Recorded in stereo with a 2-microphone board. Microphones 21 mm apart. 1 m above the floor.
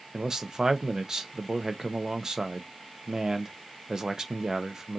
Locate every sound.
0.1 s a man speaking: 25° right (ahead or behind), 1.0 m